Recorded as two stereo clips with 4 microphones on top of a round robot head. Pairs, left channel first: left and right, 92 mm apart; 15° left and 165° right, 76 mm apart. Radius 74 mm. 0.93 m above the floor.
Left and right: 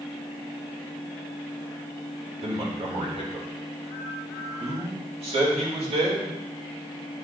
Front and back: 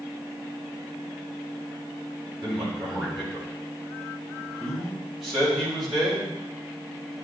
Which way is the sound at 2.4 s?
80° right.